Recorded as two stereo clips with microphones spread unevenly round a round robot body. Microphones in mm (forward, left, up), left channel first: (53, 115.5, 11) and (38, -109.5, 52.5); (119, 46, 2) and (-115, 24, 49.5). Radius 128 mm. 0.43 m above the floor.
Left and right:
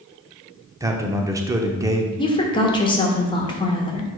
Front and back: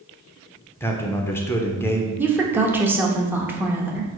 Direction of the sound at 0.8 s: 15° right.